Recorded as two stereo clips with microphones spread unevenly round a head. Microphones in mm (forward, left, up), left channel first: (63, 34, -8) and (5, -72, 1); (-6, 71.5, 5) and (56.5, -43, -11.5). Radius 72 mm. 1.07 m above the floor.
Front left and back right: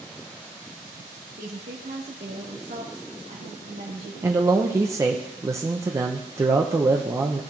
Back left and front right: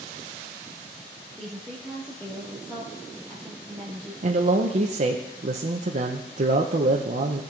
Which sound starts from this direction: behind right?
A woman speaking, at 1.4 s.